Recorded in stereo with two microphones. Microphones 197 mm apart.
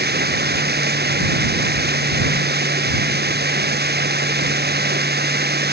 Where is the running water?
55° right (ahead or behind).